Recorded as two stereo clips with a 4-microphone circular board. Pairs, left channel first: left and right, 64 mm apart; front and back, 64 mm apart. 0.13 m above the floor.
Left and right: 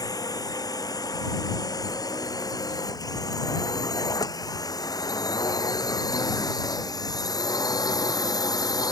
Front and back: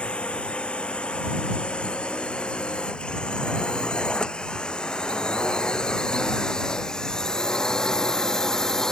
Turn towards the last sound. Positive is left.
turn(degrees=80)